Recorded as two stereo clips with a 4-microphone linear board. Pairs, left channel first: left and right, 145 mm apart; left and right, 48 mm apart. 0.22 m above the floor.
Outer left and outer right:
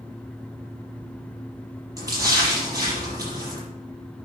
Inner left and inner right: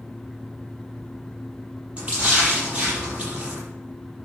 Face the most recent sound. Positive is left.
turn(degrees=-25)  # may be behind; listen again after turning